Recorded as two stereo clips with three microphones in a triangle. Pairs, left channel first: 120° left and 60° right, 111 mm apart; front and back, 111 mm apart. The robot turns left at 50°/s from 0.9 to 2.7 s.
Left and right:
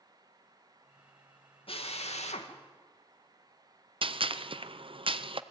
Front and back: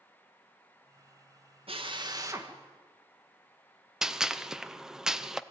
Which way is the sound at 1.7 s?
150° left.